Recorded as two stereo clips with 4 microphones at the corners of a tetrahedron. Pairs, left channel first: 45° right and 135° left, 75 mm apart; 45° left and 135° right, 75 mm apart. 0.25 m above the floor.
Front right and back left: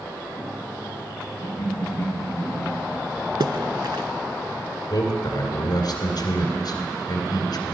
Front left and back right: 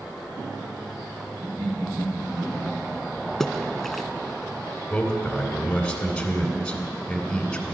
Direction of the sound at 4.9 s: 35° right.